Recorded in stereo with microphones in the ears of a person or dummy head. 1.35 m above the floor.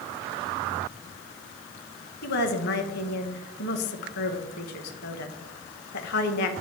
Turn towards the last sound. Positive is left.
turn(degrees=55)  # may be behind; listen again after turning